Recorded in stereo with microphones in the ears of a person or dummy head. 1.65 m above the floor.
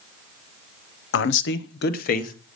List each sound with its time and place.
1.1 s a man speaking: 70° left (ahead or behind), 0.8 m; by 2.3 s 45° left (ahead or behind), 1.3 m